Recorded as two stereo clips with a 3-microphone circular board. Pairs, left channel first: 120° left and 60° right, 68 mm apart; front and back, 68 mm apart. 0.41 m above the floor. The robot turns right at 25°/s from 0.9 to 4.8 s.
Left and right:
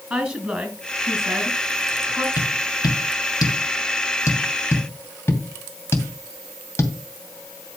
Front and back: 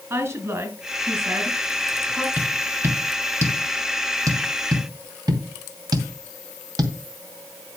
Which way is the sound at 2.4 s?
110° left.